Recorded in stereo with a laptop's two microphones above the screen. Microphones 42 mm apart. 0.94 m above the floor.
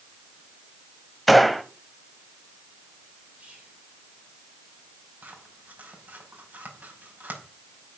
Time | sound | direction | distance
1.3 | a gunshot | centre (ahead or behind) | 1.1 m
3.4 | whispering | 35° right (ahead or behind) | 3.5 m
5.2 | scissors | 45° right (ahead or behind) | 5.5 m